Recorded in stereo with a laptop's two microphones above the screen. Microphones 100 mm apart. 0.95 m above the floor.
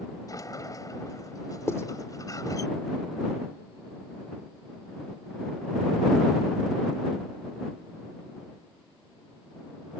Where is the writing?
30° left (ahead or behind).